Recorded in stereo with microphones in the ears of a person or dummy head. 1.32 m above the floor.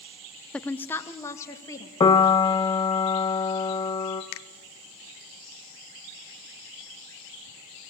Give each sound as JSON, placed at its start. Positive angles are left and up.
{"t": 0.5, "sound": "a woman speaking", "side_deg": 10, "distance_m": 0.5}
{"t": 2.0, "sound": "a piano", "side_deg": 30, "distance_m": 1.0}
{"t": 4.3, "sound": "a finger snap", "side_deg": 70, "distance_m": 0.9}